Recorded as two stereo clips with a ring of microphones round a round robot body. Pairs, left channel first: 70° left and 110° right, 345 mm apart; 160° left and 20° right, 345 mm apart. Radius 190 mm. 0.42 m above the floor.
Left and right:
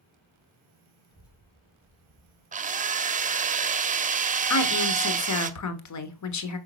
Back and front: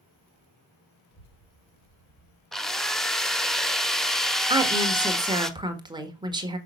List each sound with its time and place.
1.1 s a child speaking: 145° left, 2.5 m; by 2.4 s 175° right, 2.0 m
2.5 s a drill: 115° right, 0.9 m
4.5 s a woman speaking: 55° left, 1.5 m